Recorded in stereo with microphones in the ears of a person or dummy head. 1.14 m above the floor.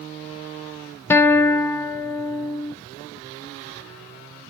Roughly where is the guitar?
Centre.